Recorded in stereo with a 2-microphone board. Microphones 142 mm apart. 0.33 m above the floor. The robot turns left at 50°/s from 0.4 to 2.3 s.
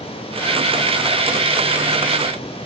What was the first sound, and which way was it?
Only background noise.